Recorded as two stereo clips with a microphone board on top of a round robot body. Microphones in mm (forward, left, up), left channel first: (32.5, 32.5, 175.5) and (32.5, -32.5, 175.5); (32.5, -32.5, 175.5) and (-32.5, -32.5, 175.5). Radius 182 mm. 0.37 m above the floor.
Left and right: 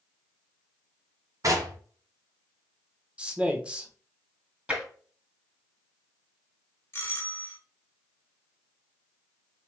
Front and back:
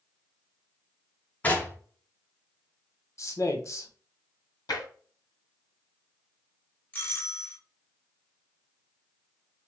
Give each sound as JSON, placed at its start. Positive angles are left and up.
{"t": 1.4, "sound": "knocking", "azimuth_deg": -65, "distance_m": 1.8}
{"t": 3.2, "sound": "a man speaking", "azimuth_deg": -20, "distance_m": 1.6}
{"t": 4.7, "sound": "tapping", "azimuth_deg": -20, "distance_m": 2.5}
{"t": 6.9, "sound": "a doorbell", "azimuth_deg": 50, "distance_m": 2.0}